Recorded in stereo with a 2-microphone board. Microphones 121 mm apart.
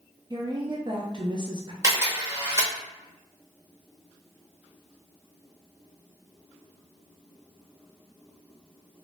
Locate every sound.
0.3 s a woman speaking: 40° right (ahead or behind), 0.5 m
1.8 s a camera shutter: 20° right (ahead or behind), 1.1 m